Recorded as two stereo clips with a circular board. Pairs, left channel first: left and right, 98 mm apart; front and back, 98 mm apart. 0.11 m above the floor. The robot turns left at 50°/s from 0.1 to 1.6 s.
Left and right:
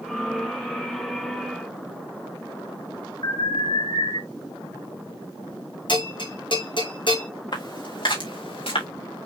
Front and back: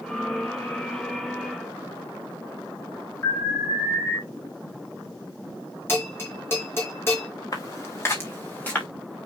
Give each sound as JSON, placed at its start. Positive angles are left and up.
{"t": 3.2, "sound": "an alarm", "azimuth_deg": 65, "distance_m": 7.0}
{"t": 5.9, "sound": "a bell", "azimuth_deg": 65, "distance_m": 4.5}
{"t": 7.5, "sound": "footsteps", "azimuth_deg": 55, "distance_m": 4.0}